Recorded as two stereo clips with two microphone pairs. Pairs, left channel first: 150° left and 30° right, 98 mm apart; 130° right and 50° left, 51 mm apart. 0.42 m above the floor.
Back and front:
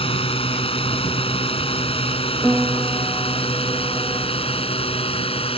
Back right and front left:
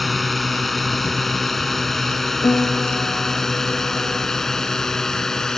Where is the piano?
115° right.